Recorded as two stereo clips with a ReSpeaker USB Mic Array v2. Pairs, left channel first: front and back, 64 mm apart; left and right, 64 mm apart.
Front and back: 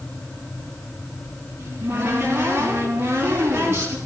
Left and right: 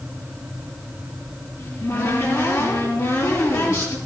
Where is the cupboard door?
125° left, 6.5 m.